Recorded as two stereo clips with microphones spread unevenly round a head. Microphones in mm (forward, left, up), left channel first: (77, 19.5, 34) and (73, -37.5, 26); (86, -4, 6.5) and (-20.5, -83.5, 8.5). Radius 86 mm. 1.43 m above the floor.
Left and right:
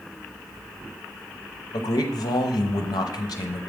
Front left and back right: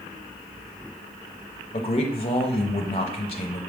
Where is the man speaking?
95° left, 0.6 m.